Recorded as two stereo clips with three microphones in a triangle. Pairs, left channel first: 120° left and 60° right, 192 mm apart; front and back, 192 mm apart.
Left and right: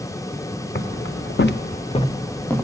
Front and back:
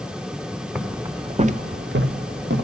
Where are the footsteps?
90° left, 1.1 m; by 2.6 s 155° right, 1.2 m.